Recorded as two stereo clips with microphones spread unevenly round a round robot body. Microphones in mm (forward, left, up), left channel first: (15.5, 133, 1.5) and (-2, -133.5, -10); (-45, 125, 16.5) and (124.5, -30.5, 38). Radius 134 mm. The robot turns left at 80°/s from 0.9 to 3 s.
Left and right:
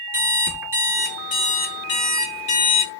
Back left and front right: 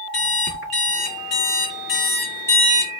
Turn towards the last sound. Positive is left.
turn(degrees=15)